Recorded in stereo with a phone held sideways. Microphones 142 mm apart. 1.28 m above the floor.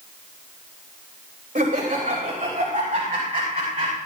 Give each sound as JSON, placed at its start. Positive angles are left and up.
{"t": 1.6, "sound": "laughter", "side_deg": -75, "distance_m": 3.0}